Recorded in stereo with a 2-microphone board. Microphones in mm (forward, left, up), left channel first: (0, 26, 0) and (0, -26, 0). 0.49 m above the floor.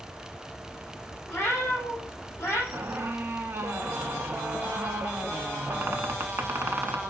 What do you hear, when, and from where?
1.3 s a cat meowing: 30° left (ahead or behind), 4 m; by 2.6 s 45° left (ahead or behind), 4 m
2.7 s a squeak: 55° right (ahead or behind), 0.6 m